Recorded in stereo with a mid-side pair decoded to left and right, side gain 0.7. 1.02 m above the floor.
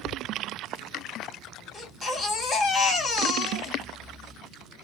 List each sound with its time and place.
1.7 s a baby crying: 25° left, 2 m